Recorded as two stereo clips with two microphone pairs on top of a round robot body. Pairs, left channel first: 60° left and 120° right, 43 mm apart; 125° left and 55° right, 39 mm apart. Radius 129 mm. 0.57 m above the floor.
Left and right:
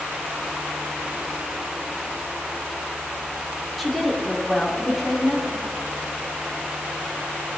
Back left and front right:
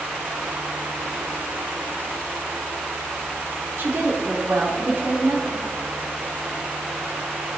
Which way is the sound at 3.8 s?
35° right.